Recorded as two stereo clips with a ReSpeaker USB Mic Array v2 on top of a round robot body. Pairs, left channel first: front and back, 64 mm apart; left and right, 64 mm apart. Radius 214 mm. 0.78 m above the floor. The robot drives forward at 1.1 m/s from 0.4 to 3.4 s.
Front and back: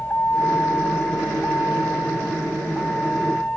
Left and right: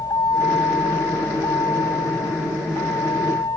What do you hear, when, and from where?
0.0 s a vehicle: 65° left; by 3.6 s 70° left